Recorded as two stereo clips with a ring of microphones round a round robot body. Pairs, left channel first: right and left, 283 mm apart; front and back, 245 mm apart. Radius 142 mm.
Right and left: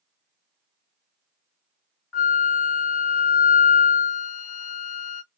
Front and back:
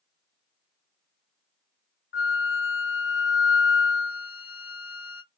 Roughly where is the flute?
Ahead right.